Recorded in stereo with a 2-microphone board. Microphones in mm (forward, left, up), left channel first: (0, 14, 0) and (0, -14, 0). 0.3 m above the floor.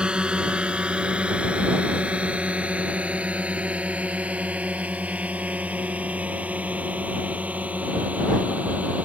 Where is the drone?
35° right (ahead or behind); by 9.1 s 65° right (ahead or behind).